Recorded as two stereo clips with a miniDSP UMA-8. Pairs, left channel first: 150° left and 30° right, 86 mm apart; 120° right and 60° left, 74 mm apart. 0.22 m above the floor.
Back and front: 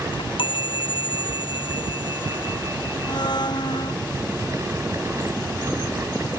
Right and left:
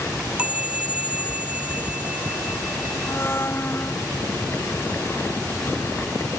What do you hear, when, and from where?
0.1 s a chime: 135° left
3.1 s a blender: straight behind